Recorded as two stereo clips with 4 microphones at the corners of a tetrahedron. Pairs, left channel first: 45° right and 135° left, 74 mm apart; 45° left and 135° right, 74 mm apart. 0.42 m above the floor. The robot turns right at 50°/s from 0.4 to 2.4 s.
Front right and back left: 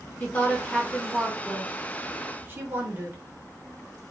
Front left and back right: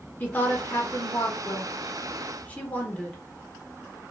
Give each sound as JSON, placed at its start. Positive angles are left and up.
{"t": 0.2, "sound": "a woman speaking", "azimuth_deg": 0, "distance_m": 0.9}